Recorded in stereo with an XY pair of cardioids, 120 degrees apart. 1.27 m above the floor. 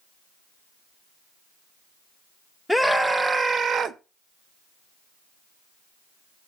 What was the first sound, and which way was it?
A scream, straight ahead.